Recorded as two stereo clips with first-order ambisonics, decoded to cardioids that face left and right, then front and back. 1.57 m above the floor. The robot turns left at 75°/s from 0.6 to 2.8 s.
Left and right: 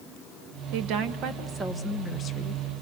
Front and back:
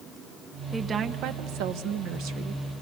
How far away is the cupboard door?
No cupboard door in this recording.